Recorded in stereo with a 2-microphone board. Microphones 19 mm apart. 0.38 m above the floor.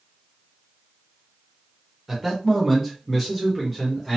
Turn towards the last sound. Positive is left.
turn(degrees=0)  # may be behind; listen again after turning